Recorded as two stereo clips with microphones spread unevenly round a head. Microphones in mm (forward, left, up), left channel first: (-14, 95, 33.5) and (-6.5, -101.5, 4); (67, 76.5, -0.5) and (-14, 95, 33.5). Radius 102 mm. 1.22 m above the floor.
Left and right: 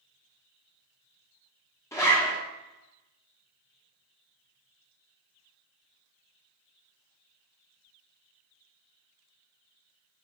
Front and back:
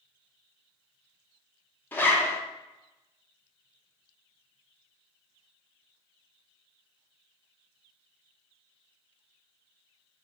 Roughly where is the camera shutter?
No camera shutter in this recording.